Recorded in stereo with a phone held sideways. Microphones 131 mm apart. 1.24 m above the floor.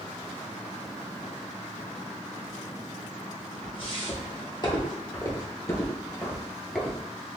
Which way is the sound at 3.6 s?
45° left (ahead or behind).